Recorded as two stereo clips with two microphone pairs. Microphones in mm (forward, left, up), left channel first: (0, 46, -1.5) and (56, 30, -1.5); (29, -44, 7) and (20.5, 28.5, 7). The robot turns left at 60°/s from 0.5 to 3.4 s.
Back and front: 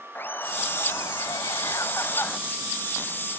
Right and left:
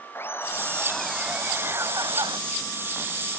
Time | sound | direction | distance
0.1 | laughter | 140° right | ?